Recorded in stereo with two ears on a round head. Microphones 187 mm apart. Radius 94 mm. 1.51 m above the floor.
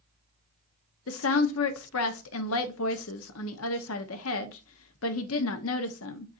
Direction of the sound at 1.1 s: 75° left (ahead or behind).